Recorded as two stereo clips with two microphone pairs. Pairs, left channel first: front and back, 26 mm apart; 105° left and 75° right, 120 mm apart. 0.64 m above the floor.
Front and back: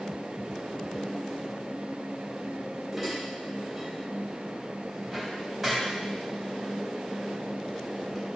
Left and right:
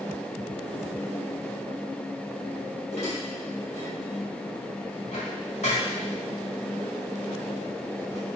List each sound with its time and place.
2.9 s dishes clattering: 95° left, 2.5 m